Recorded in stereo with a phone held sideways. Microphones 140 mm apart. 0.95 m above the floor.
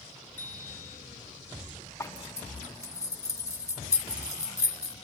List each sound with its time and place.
0.4 s a bicycle bell: 10° left (ahead or behind), 9.5 m
2.0 s a zipper: 20° left (ahead or behind), 1.3 m